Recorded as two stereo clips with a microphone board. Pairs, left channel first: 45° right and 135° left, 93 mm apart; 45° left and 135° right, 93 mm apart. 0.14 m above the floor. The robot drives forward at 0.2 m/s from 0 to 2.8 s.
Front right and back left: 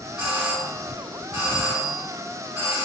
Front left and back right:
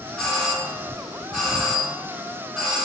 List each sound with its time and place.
0.2 s a doorbell: 125° left, 1.5 m; by 2.9 s 150° left, 1.7 m